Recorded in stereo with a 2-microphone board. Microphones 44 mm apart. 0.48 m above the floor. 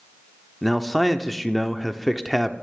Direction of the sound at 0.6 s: 5° left (ahead or behind).